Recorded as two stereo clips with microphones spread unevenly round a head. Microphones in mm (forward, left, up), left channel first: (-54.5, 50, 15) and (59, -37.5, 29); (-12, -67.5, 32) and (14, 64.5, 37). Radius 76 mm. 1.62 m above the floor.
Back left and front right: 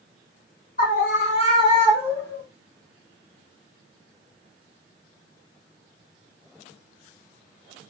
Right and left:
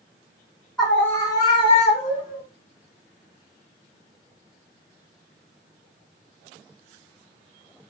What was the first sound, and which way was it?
A scream, 170° left.